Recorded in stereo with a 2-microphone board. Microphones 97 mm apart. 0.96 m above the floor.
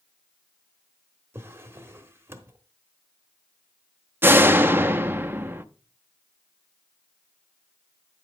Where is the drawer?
25° right (ahead or behind), 1.1 m.